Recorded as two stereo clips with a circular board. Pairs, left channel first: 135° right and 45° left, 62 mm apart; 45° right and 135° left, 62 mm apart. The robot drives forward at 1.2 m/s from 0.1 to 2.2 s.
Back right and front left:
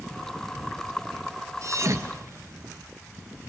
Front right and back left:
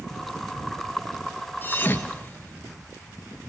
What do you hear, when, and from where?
1.6 s a thud: 10° left, 2 m; by 2.7 s 15° left, 1.4 m